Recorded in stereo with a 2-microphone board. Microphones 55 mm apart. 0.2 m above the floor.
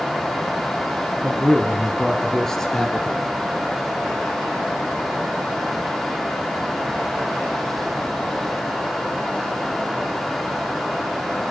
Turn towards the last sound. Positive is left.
turn(degrees=10)  # may be behind; listen again after turning